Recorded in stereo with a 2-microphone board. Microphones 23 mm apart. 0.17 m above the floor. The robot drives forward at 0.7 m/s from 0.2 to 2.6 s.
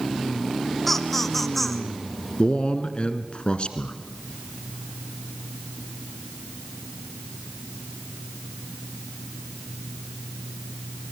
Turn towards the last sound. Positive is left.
turn(degrees=50)  # may be behind; listen again after turning